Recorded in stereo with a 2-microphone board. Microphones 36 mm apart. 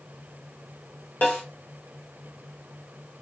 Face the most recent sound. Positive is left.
turn(degrees=60)  # may be behind; listen again after turning